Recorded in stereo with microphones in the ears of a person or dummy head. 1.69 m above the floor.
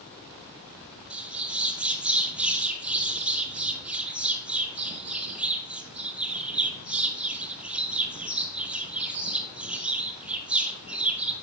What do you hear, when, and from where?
1.1 s a bird: 5° right (ahead or behind), 1.5 m